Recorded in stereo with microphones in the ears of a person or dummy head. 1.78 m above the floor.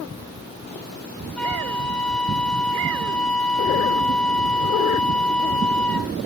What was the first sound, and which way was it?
A flute, 5° left (ahead or behind).